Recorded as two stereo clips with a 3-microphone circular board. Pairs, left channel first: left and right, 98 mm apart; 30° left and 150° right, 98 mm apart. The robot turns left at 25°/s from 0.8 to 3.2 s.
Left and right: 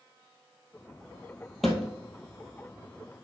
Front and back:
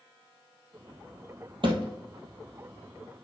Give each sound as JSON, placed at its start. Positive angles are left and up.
{"t": 1.6, "sound": "a thud", "azimuth_deg": 180, "distance_m": 1.7}